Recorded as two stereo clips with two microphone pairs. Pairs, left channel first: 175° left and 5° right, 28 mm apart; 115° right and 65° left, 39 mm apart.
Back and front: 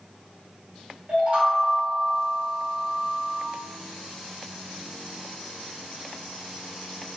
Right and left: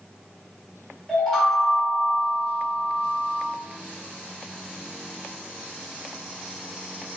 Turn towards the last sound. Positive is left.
turn(degrees=-40)